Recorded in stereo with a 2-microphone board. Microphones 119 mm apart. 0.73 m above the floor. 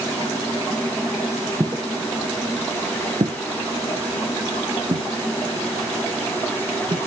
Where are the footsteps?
25° right (ahead or behind), 1.7 m; by 7.0 s 50° right (ahead or behind), 3.5 m.